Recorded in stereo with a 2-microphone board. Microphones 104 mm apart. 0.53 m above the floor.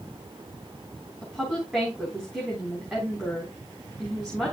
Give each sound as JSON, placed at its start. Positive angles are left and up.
{"t": 1.2, "sound": "a woman speaking", "side_deg": -10, "distance_m": 3.5}